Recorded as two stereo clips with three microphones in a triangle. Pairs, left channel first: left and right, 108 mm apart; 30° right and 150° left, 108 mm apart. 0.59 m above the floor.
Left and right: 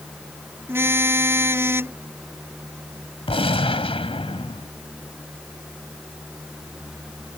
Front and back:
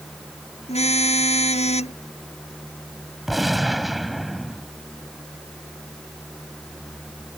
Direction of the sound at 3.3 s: 60° left.